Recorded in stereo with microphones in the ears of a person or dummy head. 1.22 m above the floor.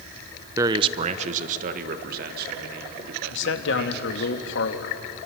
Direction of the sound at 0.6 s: 15° right (ahead or behind).